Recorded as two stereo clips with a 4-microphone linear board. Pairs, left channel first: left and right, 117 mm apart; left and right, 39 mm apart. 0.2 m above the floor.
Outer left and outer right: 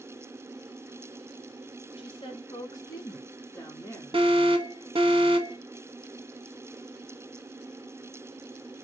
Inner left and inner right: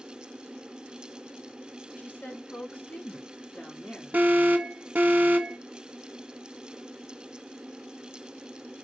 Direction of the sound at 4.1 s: 50° right (ahead or behind).